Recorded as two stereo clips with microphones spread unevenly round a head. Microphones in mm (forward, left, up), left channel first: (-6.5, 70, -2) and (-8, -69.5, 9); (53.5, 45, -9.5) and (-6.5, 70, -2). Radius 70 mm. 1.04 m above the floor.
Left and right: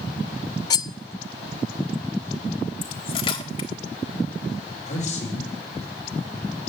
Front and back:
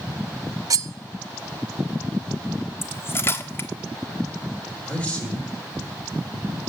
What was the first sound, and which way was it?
Cutlery clinking, 150° left.